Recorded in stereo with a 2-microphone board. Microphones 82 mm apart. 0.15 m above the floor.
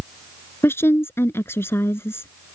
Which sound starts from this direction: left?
A woman speaking, at 0.6 s.